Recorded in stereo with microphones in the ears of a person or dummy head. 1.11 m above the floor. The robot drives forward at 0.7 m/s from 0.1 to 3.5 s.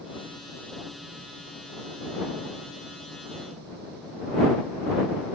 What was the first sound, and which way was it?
Only background noise.